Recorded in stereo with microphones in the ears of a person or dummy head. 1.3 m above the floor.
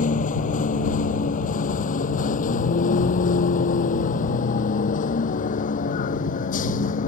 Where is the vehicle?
45° left (ahead or behind).